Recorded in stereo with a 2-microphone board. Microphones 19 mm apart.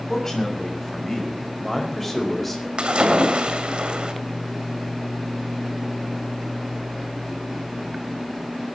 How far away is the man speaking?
About 6 m.